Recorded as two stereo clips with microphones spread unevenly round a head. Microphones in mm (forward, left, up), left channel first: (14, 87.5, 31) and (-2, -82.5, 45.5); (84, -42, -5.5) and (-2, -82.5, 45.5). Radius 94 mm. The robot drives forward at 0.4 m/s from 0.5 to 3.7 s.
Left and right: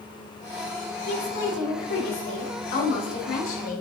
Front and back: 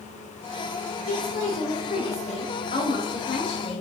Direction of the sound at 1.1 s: 55° left.